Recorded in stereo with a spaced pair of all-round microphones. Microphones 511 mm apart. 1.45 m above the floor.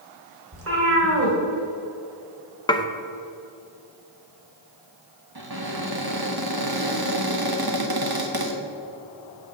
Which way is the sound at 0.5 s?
25° right (ahead or behind).